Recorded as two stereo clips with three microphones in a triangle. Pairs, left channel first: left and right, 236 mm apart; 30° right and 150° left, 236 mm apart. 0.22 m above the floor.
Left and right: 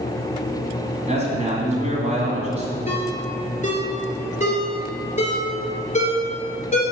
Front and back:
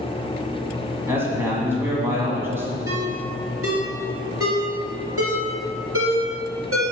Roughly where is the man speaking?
Behind right.